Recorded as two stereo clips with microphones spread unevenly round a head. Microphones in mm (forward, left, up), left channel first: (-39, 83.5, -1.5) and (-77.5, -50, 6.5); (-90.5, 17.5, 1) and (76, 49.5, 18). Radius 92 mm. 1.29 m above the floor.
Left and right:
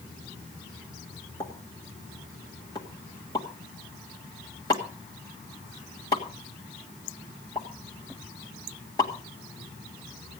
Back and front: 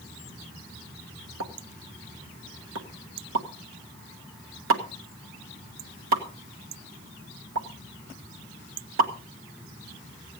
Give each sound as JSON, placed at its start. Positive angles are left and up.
{"t": 1.4, "sound": "a pop", "azimuth_deg": 5, "distance_m": 1.4}